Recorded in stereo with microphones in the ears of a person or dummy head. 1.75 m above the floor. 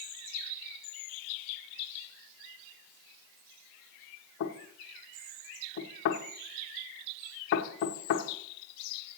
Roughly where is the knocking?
Left.